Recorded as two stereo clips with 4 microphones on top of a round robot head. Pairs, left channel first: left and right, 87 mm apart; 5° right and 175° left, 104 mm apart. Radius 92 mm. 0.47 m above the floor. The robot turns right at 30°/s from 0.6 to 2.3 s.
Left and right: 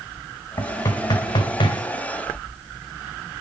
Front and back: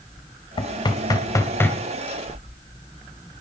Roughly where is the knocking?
Ahead left.